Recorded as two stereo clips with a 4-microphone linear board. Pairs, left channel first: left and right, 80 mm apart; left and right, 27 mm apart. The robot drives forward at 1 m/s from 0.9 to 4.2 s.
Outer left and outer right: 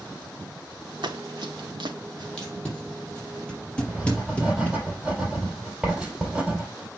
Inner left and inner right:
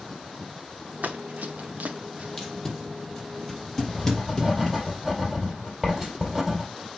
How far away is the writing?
About 4.5 m.